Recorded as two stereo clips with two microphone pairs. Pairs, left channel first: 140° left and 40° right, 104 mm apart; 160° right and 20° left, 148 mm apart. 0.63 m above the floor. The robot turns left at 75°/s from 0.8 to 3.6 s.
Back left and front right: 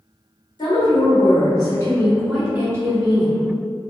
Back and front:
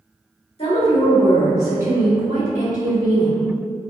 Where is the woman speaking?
165° left, 1.7 m; by 3.4 s 30° right, 1.7 m.